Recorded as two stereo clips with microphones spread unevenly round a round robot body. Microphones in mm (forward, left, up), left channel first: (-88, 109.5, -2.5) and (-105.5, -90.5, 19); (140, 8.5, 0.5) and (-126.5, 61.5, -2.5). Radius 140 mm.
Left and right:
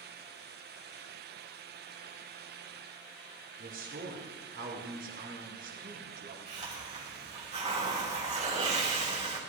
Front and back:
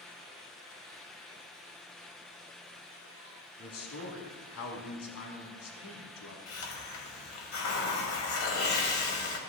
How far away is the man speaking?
About 3.5 m.